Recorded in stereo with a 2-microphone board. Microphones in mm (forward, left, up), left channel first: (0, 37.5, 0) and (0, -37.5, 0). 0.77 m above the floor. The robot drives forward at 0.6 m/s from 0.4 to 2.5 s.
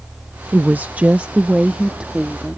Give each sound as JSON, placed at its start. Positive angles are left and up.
{"t": 0.5, "sound": "a woman speaking", "side_deg": -25}